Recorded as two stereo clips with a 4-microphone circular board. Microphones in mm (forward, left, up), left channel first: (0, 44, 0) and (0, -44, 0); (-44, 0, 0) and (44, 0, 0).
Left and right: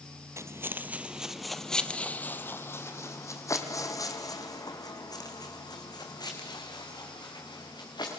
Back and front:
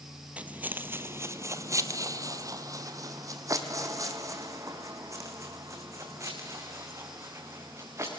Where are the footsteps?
65° right, 1.5 m; by 8.2 s 55° left, 6 m.